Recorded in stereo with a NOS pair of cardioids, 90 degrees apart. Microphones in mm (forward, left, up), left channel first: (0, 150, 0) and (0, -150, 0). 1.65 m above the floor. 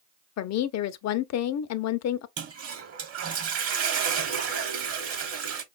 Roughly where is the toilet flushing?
Ahead right.